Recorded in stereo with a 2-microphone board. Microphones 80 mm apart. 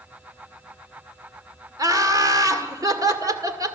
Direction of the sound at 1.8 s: 45° right (ahead or behind).